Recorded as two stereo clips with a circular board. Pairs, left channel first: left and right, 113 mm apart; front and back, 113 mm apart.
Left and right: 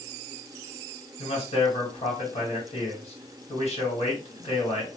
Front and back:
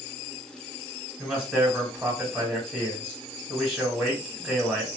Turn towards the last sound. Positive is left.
turn(degrees=105)